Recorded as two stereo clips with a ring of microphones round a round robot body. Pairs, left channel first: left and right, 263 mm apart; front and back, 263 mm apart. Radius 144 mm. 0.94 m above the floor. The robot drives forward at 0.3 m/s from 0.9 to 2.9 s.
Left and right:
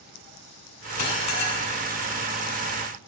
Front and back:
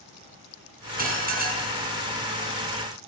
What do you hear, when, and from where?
1.0 s dishes clattering: 125° left, 6 m